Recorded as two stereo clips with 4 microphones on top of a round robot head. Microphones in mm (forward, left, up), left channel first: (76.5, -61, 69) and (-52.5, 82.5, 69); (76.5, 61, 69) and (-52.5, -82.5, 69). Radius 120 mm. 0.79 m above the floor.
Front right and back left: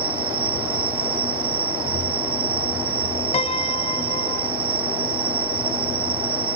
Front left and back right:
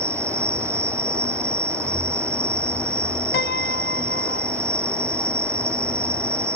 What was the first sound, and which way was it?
An insect, 150° left.